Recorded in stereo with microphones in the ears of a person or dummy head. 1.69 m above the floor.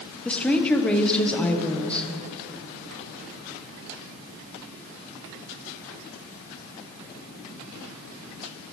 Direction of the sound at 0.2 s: 5° left (ahead or behind).